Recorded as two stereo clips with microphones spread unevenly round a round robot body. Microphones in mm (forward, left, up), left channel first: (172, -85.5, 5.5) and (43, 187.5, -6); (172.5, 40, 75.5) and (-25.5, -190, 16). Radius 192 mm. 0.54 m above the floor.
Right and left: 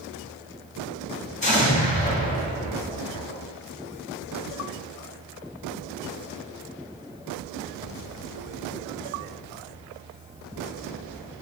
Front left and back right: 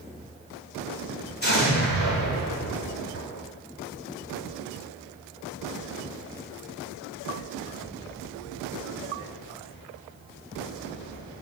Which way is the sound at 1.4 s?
Straight ahead.